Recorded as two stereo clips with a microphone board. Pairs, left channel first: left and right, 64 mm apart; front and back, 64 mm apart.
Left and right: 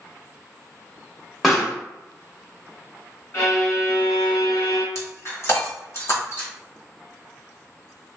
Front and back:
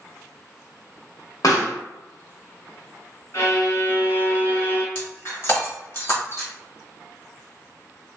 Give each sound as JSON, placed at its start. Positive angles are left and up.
{"t": 1.4, "sound": "a pop", "azimuth_deg": 0, "distance_m": 1.1}
{"t": 3.3, "sound": "a violin", "azimuth_deg": 45, "distance_m": 1.6}
{"t": 5.0, "sound": "breaking glass", "azimuth_deg": 45, "distance_m": 1.1}